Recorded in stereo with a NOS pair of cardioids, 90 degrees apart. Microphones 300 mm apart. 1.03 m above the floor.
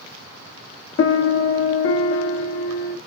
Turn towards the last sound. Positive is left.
turn(degrees=45)